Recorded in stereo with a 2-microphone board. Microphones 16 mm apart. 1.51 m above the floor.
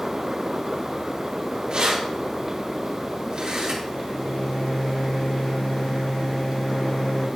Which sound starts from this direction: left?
A microwave, at 3.9 s.